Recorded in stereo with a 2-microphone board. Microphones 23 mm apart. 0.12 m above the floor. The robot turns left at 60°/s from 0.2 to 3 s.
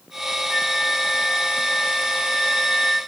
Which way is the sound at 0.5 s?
175° left.